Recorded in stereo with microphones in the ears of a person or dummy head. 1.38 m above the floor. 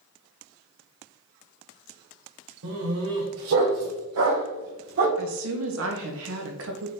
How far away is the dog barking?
About 2.5 m.